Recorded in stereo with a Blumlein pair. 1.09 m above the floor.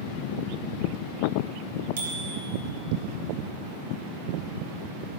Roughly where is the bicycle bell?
Ahead right.